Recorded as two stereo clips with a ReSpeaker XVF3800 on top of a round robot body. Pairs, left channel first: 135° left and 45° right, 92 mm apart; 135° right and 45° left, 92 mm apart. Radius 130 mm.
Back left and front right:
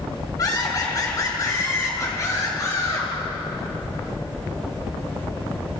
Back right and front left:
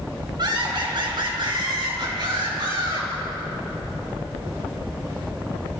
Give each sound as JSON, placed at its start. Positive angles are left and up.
{"t": 0.4, "sound": "laughter", "azimuth_deg": 85, "distance_m": 5.0}